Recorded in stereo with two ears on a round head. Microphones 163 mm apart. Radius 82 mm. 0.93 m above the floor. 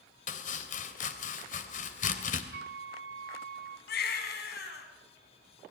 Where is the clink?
No clink in this recording.